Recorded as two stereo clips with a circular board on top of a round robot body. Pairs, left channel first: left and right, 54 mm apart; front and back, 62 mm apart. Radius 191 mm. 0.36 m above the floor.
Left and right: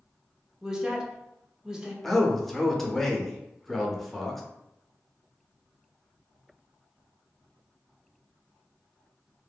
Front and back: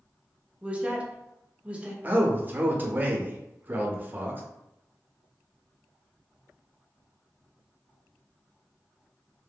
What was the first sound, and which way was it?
A woman speaking, 150° right.